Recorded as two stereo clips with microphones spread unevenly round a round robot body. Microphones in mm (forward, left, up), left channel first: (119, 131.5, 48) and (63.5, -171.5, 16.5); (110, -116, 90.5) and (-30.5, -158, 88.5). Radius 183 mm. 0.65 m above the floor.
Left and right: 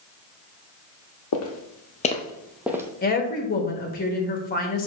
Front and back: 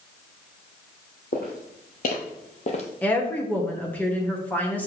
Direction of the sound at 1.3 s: 65° left.